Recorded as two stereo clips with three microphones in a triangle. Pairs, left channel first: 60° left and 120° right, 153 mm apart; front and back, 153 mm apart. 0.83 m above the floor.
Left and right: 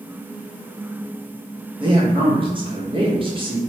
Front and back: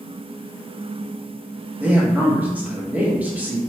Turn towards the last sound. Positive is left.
turn(degrees=-110)